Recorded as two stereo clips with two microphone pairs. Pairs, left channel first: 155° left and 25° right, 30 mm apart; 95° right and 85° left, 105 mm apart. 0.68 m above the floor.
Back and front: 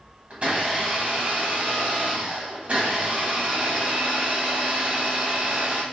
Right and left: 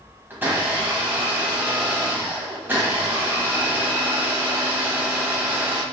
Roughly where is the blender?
Ahead.